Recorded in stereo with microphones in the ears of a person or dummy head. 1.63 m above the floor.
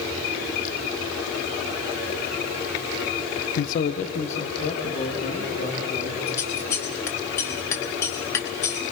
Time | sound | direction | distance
3.6 | a man speaking | 60° left (ahead or behind) | 0.5 m
6.3 | scissors | 25° left (ahead or behind) | 1.3 m